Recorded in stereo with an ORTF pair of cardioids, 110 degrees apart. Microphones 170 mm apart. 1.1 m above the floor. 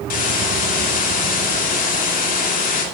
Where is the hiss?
55° left, 2.5 m.